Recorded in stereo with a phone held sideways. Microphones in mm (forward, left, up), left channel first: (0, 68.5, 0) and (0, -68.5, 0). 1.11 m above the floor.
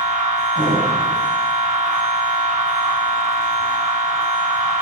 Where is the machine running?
70° right (ahead or behind), 2 m.